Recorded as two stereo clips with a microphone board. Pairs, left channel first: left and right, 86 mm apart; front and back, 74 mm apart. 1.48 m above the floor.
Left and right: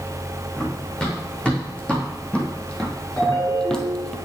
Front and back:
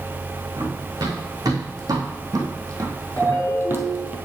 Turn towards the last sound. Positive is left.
turn(degrees=40)